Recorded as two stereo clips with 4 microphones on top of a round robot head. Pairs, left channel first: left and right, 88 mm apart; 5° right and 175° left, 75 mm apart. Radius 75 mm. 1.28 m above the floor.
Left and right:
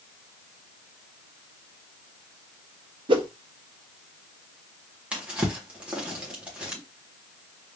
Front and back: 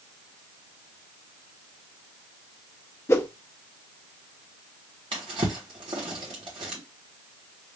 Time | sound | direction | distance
3.1 | a whoosh | 60° right | 0.8 m
5.1 | a drawer | 165° right | 1.3 m